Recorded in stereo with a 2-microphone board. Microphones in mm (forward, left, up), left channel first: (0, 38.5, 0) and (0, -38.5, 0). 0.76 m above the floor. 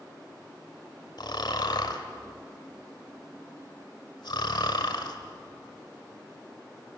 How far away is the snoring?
About 1.9 m.